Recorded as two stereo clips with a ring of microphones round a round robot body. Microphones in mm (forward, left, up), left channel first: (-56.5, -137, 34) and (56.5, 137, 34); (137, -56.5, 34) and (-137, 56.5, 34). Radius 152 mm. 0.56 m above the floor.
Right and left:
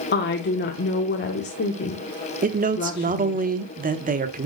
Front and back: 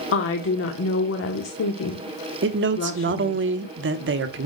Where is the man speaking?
120° left, 1.2 m.